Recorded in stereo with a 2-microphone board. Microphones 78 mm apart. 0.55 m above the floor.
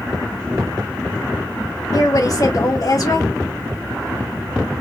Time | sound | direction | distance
1.9 | a woman speaking | 50° left (ahead or behind) | 1.1 m